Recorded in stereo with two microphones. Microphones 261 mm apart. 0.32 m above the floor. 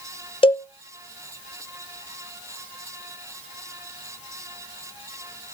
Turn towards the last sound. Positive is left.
turn(degrees=20)  # may be behind; listen again after turning